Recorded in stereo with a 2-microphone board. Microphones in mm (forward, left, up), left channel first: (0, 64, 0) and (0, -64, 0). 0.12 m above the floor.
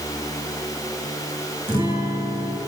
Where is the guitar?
40° right (ahead or behind), 7.5 m.